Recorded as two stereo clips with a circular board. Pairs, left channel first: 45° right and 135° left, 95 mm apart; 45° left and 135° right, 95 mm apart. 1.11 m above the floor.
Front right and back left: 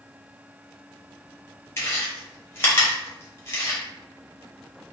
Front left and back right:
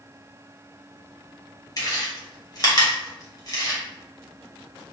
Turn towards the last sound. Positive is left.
turn(degrees=10)